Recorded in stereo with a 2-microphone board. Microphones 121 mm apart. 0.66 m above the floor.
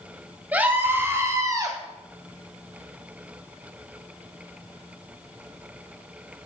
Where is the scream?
15° right (ahead or behind), 4 m; by 1.8 s 35° right (ahead or behind), 3.5 m.